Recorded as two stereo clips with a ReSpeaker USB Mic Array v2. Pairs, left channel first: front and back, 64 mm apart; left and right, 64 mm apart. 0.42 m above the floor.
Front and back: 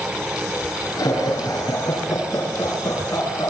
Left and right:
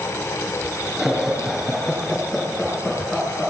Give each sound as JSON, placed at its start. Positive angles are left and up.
{"t": 1.0, "sound": "laughter", "azimuth_deg": -5, "distance_m": 7.5}